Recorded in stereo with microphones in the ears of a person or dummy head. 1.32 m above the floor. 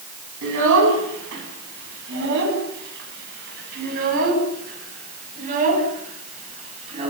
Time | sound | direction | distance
0.4 | a child speaking | 65° right (ahead or behind) | 9.5 m